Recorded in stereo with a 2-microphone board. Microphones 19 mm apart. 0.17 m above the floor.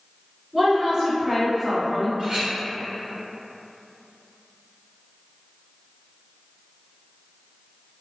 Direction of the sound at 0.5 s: 30° right (ahead or behind).